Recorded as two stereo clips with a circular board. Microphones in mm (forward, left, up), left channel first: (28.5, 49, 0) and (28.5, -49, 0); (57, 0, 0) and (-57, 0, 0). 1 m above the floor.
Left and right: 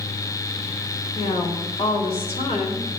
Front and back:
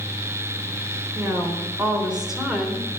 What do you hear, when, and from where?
1.1 s a woman speaking: 105° left, 3.5 m; by 2.9 s 90° left, 3 m